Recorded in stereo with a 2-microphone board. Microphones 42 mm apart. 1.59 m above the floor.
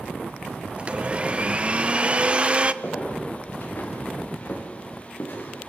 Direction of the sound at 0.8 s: 25° right (ahead or behind).